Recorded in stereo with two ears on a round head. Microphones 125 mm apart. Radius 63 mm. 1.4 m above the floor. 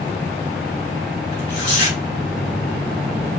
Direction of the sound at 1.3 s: 50° left (ahead or behind).